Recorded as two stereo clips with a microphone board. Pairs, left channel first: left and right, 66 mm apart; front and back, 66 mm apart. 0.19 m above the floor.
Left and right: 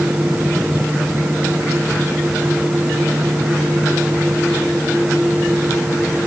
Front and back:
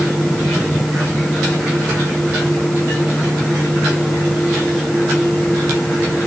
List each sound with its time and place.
Only background noise.